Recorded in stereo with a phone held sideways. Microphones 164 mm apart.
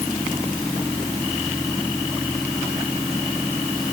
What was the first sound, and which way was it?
Only background noise.